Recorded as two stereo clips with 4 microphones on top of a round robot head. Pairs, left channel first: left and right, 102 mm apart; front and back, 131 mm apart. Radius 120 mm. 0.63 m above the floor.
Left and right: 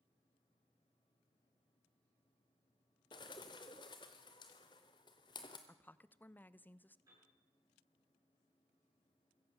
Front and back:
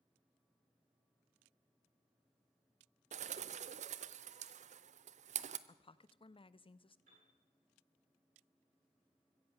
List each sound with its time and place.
3.1 s a bird: 150° left, 0.6 m
5.7 s a woman speaking: 25° left, 0.7 m
7.1 s a piano: 150° right, 9 m